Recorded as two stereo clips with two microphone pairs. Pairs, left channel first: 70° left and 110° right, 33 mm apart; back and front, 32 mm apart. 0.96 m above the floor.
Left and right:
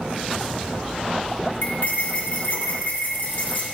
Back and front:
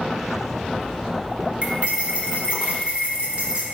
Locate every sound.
1.6 s cutlery clinking: 55° left, 1.5 m